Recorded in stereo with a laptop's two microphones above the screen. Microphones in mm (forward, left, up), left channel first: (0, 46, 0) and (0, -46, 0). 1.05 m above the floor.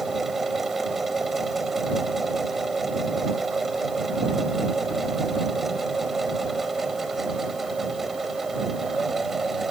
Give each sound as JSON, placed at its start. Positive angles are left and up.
{"t": 0.0, "sound": "a machine running", "side_deg": 0}